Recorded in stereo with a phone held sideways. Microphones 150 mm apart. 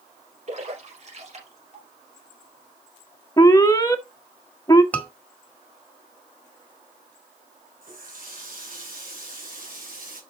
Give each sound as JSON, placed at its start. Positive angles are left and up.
{"t": 0.5, "sound": "a splash", "side_deg": -50, "distance_m": 4.5}
{"t": 3.4, "sound": "an alarm", "side_deg": 25, "distance_m": 1.1}
{"t": 4.9, "sound": "a scream", "side_deg": 10, "distance_m": 2.0}
{"t": 7.8, "sound": "a running tap", "side_deg": -70, "distance_m": 3.0}